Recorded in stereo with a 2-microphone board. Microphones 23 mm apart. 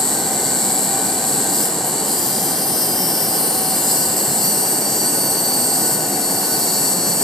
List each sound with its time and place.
0.0 s an insect: 10° left (ahead or behind), 1.3 m